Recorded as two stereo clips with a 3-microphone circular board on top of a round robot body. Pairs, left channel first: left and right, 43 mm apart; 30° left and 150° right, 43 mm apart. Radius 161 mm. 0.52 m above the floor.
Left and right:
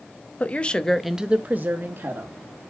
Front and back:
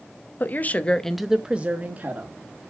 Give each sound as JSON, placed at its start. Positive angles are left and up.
{"t": 0.4, "sound": "a woman speaking", "azimuth_deg": 50, "distance_m": 1.3}